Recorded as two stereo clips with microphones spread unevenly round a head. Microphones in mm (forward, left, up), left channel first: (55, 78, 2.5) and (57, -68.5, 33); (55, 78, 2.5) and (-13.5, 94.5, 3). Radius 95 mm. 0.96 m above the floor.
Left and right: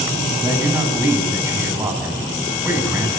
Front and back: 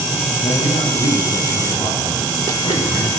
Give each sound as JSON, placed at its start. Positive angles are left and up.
{"t": 0.4, "sound": "a man speaking", "azimuth_deg": -15, "distance_m": 7.5}